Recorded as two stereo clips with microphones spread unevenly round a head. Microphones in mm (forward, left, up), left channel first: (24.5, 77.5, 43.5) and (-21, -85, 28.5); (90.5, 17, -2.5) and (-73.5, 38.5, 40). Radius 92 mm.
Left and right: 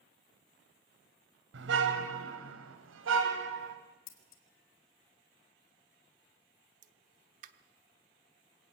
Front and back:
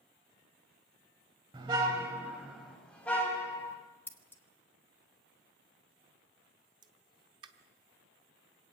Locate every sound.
1.5 s a car horn: 125° right, 2.5 m; by 3.8 s 85° right, 3 m
4.1 s scissors: 70° left, 2 m
6.8 s a pop: 145° right, 0.9 m